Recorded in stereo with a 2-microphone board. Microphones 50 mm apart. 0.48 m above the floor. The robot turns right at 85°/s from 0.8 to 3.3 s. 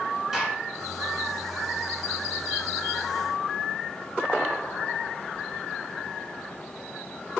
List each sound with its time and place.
0.3 s a gunshot: 10° right (ahead or behind), 1.4 m